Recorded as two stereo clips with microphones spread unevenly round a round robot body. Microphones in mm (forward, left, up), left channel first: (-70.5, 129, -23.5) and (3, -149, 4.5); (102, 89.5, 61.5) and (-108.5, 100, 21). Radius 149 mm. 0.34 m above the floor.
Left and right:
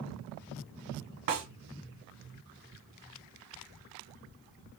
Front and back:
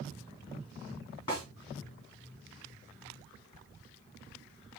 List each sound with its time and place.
1.3 s a snare drum: 75° right, 1.8 m